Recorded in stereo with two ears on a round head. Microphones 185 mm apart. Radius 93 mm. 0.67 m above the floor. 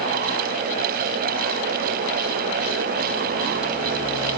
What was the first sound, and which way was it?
Only background noise.